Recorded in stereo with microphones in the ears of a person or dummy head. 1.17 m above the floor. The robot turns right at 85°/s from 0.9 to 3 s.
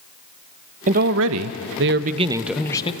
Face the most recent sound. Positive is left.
turn(degrees=40)